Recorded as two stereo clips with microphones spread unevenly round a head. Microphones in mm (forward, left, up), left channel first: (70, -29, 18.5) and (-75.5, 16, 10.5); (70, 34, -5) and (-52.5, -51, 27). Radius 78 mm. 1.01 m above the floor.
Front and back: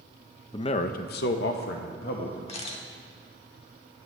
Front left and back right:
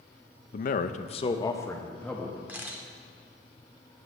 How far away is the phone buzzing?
No phone buzzing in this recording.